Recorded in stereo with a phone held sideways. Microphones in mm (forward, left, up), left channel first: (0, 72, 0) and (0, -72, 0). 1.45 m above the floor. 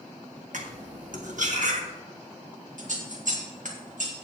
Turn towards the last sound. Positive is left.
turn(degrees=-70)  # may be behind; listen again after turning